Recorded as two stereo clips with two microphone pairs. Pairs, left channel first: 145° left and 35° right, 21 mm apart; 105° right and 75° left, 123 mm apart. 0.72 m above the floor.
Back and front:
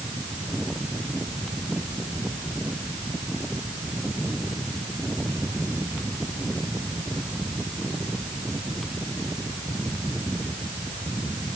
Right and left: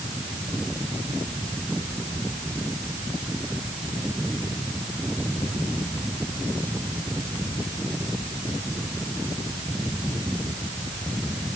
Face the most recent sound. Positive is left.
No sound to turn to.